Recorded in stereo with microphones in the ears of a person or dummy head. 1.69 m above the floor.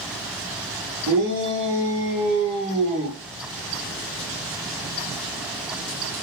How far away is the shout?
About 1.0 m.